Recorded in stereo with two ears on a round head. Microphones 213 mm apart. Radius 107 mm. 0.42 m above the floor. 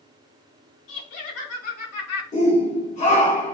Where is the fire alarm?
I don't hear a fire alarm.